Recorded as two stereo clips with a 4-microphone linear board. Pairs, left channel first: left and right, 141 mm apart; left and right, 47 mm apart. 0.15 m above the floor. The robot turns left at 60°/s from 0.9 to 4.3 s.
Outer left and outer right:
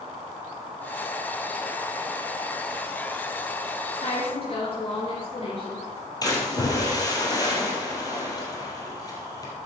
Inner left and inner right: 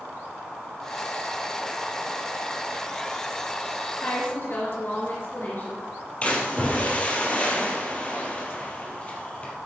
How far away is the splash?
About 3 m.